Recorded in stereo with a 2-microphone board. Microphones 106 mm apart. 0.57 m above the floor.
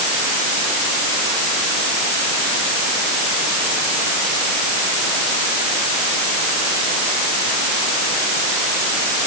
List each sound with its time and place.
Only background noise.